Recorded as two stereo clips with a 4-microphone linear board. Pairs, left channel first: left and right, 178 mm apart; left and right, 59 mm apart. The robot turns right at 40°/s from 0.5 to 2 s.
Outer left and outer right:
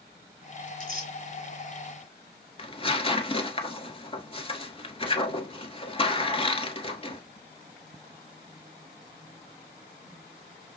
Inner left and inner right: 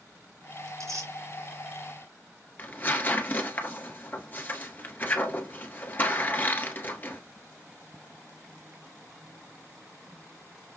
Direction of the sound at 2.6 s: 35° left (ahead or behind).